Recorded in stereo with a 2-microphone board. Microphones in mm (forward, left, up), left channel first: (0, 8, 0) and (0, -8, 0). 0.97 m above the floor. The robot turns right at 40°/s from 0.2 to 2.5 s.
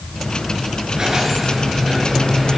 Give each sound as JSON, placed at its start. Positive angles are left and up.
{"t": 0.9, "sound": "a squeak", "azimuth_deg": -40, "distance_m": 7.0}